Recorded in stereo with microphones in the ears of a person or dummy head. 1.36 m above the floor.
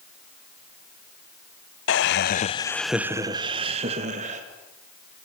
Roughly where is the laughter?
Left.